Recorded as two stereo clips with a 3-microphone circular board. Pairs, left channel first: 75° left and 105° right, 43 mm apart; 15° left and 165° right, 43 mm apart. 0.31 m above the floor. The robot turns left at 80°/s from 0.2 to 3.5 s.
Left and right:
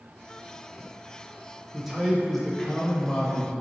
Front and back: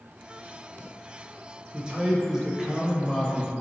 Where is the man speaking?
165° right, 0.9 m; by 3.5 s 55° left, 0.9 m.